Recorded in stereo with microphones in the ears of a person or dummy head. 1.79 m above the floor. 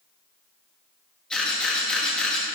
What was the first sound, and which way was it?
A camera shutter, 5° left (ahead or behind).